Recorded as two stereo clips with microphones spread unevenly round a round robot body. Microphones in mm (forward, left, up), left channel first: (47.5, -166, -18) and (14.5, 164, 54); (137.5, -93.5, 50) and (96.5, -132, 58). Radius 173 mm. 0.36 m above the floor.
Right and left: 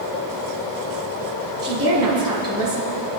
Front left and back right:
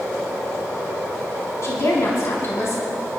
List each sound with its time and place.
1.6 s a woman speaking: 15° left, 4.5 m